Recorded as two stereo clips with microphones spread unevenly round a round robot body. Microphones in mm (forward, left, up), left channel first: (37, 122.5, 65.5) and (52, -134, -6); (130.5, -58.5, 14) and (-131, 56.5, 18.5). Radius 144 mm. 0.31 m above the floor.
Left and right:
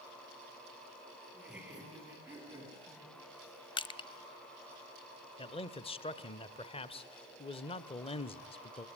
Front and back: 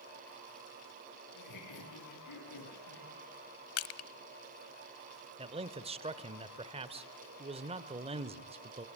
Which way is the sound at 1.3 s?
Straight ahead.